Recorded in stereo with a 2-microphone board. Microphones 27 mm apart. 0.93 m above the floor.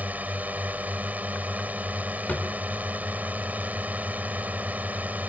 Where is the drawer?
70° left (ahead or behind).